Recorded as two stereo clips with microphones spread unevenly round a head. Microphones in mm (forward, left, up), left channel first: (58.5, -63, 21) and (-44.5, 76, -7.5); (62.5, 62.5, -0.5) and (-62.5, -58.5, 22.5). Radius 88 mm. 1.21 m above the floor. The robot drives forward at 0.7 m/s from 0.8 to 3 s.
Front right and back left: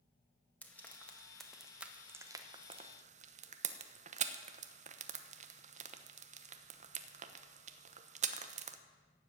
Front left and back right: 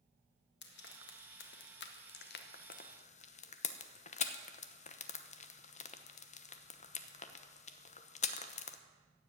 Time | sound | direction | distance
0.6 | frying | 30° left | 1.9 m